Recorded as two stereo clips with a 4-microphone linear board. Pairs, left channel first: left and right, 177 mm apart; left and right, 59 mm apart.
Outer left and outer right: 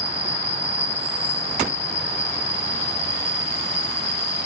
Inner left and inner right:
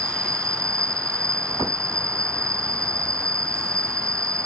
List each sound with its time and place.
0.0 s an insect: 80° right